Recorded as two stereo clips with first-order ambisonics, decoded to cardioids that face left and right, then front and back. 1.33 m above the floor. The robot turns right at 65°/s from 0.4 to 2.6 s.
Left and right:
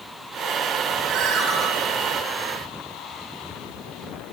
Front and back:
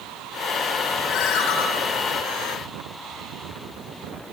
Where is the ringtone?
45° right, 9 m; by 1.6 s 10° right, 9 m.